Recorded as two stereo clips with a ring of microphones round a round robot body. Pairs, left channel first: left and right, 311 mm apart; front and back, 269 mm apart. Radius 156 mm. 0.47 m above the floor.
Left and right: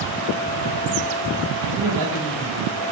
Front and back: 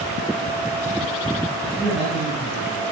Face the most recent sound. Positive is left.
turn(degrees=-70)